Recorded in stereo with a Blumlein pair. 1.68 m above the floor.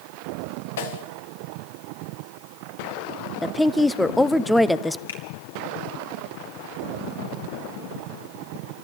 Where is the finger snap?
65° left, 3.5 m.